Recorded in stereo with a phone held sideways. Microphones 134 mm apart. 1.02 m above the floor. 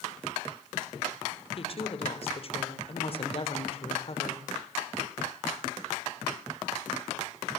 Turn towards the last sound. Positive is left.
turn(degrees=45)  # may be behind; listen again after turning